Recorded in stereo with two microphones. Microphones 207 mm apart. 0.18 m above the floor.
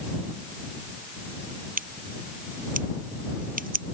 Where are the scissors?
45° right (ahead or behind).